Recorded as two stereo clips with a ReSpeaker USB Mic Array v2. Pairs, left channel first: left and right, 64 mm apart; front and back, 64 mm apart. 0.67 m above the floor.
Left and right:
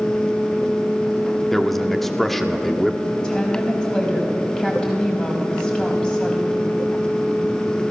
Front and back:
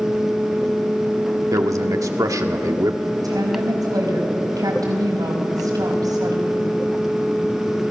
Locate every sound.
1.5 s a man speaking: 175° left, 1.5 m
3.2 s a woman speaking: 165° left, 5 m